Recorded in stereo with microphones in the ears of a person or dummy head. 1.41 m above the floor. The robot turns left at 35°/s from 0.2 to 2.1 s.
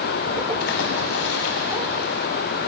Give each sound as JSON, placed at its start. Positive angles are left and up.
{"t": 0.6, "sound": "a splash", "azimuth_deg": 120, "distance_m": 2.0}